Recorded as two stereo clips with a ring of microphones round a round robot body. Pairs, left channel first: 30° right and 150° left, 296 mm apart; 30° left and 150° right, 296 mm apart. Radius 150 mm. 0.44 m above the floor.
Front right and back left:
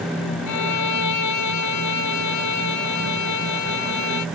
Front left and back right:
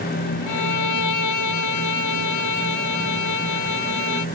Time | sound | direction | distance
0.5 | a violin | straight ahead | ?